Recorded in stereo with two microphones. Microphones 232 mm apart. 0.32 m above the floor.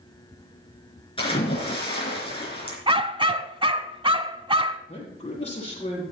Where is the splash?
25° left (ahead or behind), 4 m.